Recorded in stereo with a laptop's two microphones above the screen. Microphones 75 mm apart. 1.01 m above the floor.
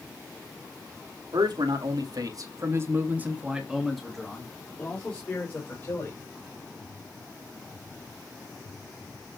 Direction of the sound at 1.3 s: 75° right (ahead or behind).